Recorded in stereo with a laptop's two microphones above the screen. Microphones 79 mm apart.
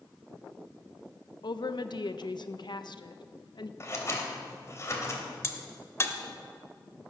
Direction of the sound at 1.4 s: 65° left (ahead or behind).